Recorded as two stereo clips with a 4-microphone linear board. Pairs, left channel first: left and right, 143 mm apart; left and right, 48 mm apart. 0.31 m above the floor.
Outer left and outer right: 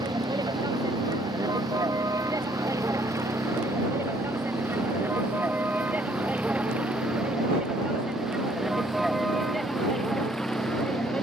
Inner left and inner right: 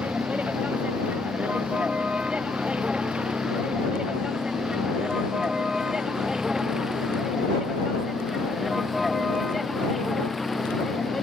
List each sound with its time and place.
0.0 s a vehicle: 30° right (ahead or behind); by 11.2 s 5° left (ahead or behind)